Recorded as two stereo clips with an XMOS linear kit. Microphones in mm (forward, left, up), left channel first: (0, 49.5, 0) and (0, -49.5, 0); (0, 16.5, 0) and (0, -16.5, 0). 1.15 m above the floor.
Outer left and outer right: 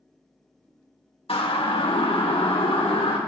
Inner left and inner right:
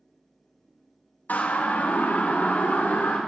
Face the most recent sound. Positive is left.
turn(degrees=80)